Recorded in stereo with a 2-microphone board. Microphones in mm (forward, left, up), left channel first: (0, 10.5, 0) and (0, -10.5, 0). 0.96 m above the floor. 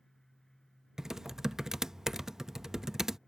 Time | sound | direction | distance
1.0 | typing on a keyboard | 20° right (ahead or behind) | ?